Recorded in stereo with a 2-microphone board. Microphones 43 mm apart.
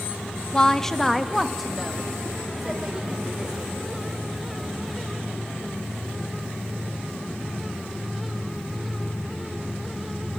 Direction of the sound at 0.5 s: 20° left (ahead or behind).